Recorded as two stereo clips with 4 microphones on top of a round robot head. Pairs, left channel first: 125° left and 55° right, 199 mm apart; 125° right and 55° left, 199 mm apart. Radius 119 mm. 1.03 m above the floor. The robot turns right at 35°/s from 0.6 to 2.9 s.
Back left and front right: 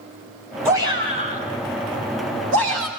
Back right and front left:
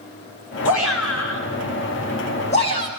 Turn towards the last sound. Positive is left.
turn(degrees=-55)